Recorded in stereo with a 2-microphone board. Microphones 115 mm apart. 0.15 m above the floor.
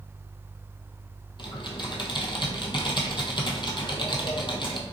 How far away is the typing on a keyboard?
About 0.8 m.